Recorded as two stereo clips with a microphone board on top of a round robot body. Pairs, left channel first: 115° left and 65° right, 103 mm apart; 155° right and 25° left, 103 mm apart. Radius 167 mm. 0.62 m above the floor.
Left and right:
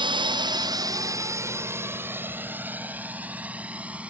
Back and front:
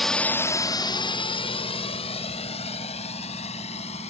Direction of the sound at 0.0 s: 70° right.